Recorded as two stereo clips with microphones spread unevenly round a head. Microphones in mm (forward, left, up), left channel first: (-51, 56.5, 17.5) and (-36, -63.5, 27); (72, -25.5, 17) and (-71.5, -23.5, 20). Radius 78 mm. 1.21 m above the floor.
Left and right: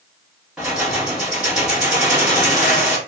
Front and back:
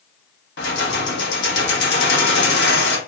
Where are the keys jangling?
Straight ahead, 1.1 m.